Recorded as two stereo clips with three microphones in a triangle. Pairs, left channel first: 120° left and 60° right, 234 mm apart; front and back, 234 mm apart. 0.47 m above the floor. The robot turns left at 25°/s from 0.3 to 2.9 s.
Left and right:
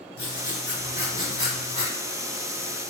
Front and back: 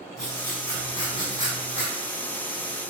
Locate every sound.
0.2 s writing: 85° left, 1.0 m; by 1.9 s 45° left, 1.0 m